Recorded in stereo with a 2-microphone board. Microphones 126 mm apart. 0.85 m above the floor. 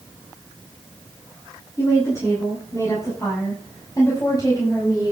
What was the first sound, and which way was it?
A woman speaking, 25° left (ahead or behind).